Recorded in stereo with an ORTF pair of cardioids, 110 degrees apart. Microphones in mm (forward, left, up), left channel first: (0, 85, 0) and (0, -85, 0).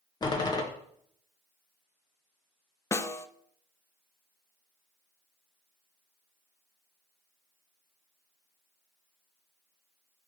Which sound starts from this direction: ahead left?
A door slam, at 0.2 s.